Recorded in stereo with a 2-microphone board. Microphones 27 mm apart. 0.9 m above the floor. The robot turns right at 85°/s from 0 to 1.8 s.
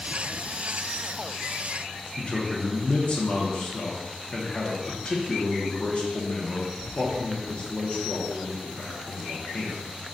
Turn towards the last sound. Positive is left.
turn(degrees=40)  # may be behind; listen again after turning